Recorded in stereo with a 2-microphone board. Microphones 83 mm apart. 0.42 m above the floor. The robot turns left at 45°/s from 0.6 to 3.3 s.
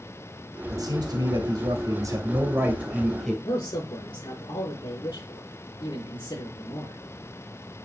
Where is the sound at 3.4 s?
65° left (ahead or behind), 7 m.